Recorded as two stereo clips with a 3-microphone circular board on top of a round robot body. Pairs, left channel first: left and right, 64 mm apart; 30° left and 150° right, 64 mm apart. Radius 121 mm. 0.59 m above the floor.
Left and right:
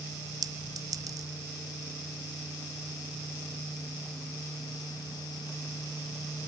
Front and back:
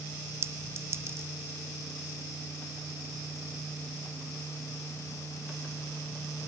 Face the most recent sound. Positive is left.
turn(degrees=-105)